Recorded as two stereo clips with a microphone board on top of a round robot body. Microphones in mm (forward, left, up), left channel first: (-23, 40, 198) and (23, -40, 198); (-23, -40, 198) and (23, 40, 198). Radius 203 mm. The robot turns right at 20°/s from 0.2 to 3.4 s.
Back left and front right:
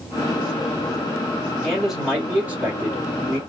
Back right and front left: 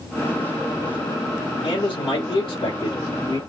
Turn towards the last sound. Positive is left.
turn(degrees=-110)